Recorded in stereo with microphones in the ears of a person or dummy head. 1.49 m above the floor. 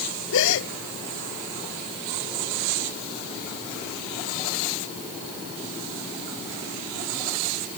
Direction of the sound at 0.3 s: 75° left (ahead or behind).